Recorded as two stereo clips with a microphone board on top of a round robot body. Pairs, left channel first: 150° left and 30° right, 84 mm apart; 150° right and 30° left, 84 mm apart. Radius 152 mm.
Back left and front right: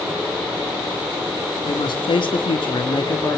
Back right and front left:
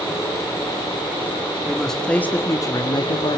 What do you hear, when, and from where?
1.6 s a man speaking: 120° left, 2.5 m; by 3.4 s 155° right, 1.9 m